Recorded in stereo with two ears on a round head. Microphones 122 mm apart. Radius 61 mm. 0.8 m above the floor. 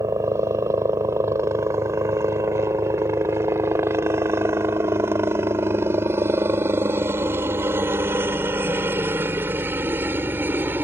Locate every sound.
0.0 s a helicopter: 20° right (ahead or behind); by 10.8 s 15° right (ahead or behind)